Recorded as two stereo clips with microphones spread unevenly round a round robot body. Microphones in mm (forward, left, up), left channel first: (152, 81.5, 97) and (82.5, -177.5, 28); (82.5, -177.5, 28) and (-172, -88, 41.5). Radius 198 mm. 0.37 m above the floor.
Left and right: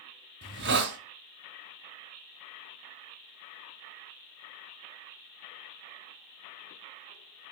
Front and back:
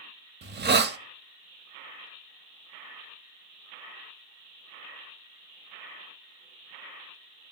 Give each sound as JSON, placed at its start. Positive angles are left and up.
{"t": 0.4, "sound": "a hiss", "azimuth_deg": -145, "distance_m": 1.3}